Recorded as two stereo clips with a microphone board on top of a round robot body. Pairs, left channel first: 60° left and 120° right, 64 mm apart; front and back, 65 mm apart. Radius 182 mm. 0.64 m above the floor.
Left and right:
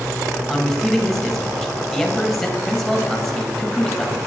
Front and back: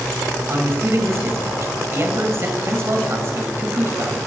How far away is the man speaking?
About 1.9 m.